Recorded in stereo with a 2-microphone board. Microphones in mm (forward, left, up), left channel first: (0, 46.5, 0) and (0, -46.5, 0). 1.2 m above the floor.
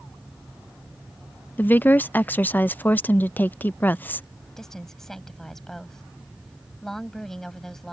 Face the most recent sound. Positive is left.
turn(degrees=5)  # may be behind; listen again after turning